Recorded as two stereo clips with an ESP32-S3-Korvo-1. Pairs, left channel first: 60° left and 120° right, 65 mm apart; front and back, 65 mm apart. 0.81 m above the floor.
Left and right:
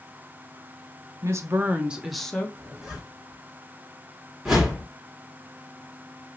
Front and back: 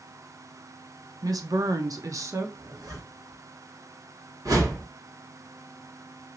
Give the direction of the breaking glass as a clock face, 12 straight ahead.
I don't hear breaking glass.